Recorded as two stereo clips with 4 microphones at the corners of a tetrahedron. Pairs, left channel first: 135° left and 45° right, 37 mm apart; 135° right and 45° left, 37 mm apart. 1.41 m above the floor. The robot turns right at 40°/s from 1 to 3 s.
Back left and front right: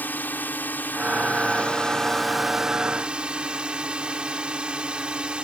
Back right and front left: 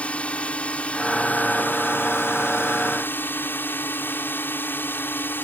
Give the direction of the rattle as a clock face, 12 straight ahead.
I don't hear a rattle.